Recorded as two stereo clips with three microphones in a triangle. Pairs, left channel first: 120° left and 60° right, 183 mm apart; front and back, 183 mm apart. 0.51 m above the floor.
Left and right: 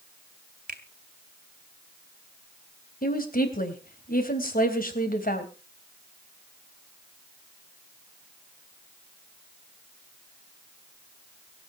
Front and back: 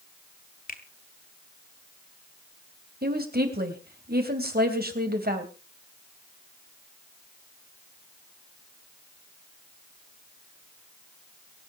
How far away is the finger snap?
About 2 m.